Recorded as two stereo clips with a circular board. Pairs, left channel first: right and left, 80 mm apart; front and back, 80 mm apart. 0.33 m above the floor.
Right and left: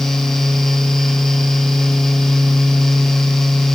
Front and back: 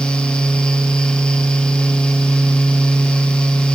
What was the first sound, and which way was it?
Only background noise.